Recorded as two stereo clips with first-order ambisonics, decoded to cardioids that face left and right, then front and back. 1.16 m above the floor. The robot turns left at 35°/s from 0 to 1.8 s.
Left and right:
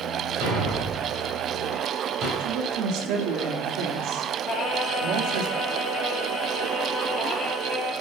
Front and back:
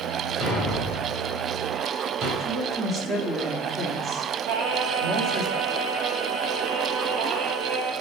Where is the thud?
95° right, 4.5 m; by 2.3 s 140° right, 4.5 m.